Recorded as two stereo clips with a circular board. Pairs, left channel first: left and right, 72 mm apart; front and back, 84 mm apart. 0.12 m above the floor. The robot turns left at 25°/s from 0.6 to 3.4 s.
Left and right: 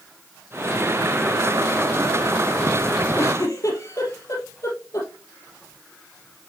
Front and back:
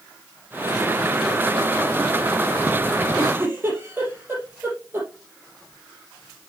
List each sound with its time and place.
3.2 s a giggle: 125° left, 3.5 m; by 5.1 s 120° left, 3.5 m